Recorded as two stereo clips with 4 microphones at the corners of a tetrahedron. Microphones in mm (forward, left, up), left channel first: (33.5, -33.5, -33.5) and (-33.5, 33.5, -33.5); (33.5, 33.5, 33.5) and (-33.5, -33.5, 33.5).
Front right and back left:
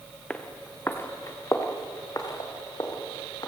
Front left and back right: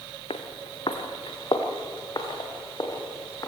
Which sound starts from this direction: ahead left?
Footsteps, at 0.3 s.